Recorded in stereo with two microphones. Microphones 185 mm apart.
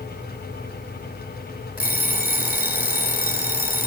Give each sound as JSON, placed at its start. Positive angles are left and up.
{"t": 1.8, "sound": "an alarm clock", "side_deg": 55, "distance_m": 3.0}